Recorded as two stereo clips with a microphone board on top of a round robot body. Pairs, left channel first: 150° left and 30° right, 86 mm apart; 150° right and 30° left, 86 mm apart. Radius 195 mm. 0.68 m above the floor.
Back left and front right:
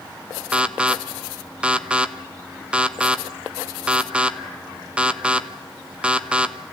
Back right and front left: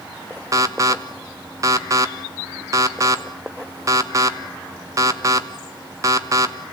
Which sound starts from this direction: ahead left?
An alarm, at 0.5 s.